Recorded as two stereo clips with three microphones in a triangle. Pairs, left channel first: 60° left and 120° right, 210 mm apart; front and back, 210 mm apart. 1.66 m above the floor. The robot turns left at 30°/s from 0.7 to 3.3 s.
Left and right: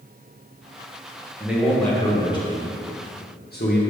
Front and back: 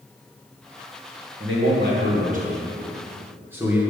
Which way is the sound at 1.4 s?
155° left.